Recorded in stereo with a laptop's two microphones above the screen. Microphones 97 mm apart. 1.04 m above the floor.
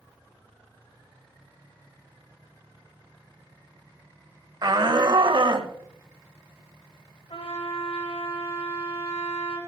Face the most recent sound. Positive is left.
turn(degrees=85)